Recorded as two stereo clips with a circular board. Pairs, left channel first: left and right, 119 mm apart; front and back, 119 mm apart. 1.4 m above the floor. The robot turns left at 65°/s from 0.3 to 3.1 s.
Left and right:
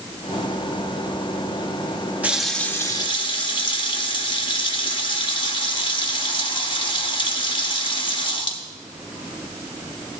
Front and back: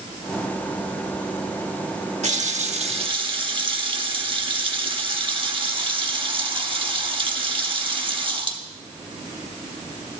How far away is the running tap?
About 1.3 m.